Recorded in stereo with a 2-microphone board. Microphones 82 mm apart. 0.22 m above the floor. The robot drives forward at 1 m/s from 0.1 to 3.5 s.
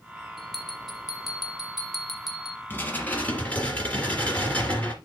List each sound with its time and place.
0.4 s a bell: centre (ahead or behind), 2.5 m; by 2.6 s 5° right (ahead or behind), 0.9 m
2.7 s dishes clattering: 25° left (ahead or behind), 1.2 m; by 5.0 s 15° left (ahead or behind), 1.9 m